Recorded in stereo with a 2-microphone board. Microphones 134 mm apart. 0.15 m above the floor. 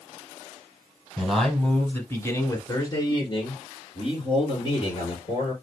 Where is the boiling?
No boiling in this recording.